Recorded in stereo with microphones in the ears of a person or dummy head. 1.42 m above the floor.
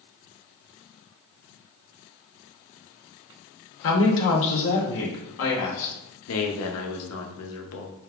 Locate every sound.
3.8 s a woman speaking: 65° left (ahead or behind), 0.8 m
6.3 s a man speaking: 65° left (ahead or behind), 0.7 m